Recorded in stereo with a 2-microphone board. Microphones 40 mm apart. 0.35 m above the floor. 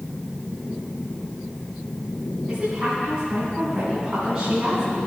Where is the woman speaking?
30° right (ahead or behind), 4 m.